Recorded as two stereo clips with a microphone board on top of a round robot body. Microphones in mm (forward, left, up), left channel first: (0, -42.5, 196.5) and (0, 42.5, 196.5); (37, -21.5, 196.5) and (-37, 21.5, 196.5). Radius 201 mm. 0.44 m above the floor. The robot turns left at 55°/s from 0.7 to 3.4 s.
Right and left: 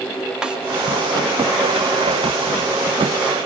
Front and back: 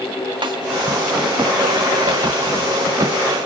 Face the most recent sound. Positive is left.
turn(degrees=20)